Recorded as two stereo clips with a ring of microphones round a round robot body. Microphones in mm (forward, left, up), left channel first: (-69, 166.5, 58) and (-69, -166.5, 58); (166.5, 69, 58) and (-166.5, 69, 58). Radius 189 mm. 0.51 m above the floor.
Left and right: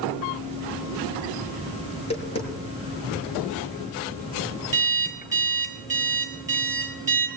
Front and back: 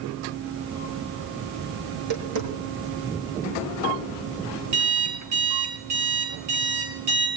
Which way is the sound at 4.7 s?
170° right.